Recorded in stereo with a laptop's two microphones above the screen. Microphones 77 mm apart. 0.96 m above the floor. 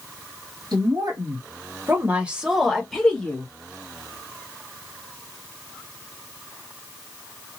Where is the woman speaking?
60° right (ahead or behind), 1.1 m; by 3.5 s 20° left (ahead or behind), 1.2 m.